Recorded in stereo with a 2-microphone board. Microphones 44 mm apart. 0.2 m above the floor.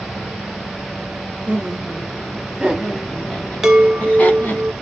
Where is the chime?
10° right (ahead or behind), 0.7 m.